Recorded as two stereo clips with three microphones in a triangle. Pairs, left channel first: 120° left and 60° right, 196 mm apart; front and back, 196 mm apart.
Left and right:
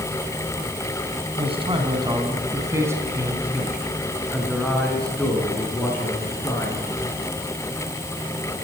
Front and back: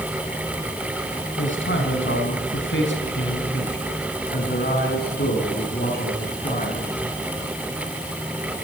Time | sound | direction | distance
1.4 | a man speaking | straight ahead | 4 m